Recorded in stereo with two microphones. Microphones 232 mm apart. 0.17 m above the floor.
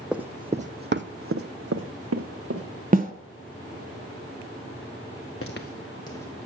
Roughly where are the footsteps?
Left.